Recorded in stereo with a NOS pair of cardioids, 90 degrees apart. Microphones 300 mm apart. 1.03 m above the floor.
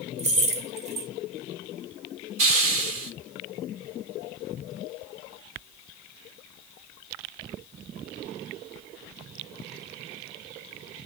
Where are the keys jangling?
25° right, 0.8 m.